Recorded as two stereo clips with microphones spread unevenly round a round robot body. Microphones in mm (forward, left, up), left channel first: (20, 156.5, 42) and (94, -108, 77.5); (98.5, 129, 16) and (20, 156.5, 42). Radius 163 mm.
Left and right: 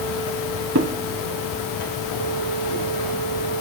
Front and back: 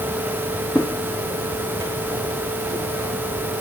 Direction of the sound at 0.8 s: 115° right.